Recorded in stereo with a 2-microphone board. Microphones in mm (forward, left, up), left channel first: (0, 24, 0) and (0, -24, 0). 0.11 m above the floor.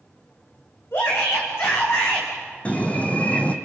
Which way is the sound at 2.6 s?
30° left (ahead or behind).